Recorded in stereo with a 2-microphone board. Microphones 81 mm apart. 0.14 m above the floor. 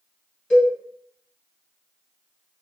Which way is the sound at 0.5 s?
15° left (ahead or behind).